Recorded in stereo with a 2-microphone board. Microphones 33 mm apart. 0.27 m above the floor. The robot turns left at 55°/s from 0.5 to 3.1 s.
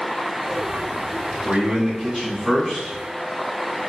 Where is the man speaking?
5° right (ahead or behind), 1.4 m; by 3.0 s 25° left (ahead or behind), 1.4 m.